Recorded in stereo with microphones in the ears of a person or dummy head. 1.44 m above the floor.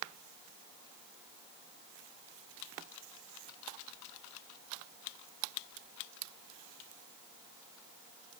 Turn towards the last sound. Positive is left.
No sound to turn to.